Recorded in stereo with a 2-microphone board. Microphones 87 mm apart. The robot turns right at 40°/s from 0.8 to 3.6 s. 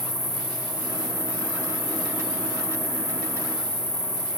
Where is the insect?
55° left, 9.5 m; by 4.4 s 170° left, 9.5 m.